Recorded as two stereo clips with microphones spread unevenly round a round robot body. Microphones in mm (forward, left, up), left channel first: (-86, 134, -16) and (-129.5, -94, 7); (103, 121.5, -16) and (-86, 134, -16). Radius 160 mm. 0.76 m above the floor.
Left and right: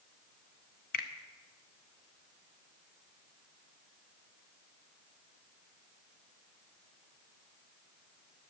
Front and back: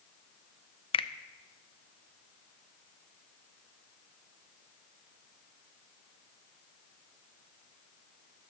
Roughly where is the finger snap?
Ahead left.